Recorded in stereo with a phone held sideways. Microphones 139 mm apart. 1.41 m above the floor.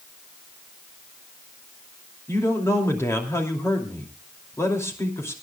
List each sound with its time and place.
2.3 s a man speaking: 20° left (ahead or behind), 2.5 m